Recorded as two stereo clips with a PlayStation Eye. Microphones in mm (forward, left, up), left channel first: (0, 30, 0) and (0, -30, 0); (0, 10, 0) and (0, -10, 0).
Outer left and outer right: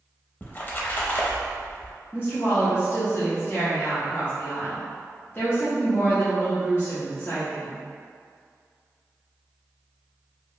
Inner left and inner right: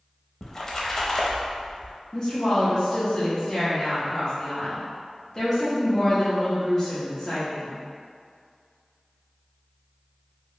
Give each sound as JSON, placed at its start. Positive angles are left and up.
{"t": 0.4, "sound": "a splash", "side_deg": 30, "distance_m": 0.5}
{"t": 2.1, "sound": "a woman speaking", "side_deg": 35, "distance_m": 0.8}